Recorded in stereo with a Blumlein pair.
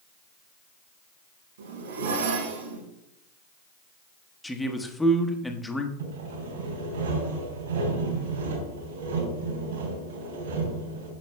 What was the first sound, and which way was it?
A zipper, 65° right.